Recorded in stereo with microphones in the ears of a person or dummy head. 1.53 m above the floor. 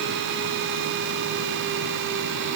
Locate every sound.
Only background noise.